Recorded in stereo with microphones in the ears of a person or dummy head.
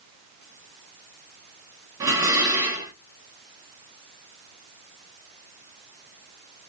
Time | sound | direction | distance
2.0 | dishes clattering | 10° right (ahead or behind) | 0.7 m